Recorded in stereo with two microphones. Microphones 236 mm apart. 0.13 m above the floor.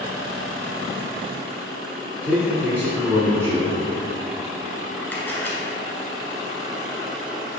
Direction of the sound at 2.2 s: 10° right (ahead or behind).